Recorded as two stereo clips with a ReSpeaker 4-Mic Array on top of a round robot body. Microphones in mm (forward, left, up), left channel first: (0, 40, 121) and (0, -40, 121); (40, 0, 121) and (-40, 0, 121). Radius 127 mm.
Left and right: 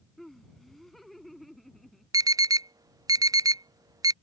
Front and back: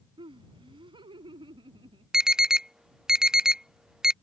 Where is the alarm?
100° right.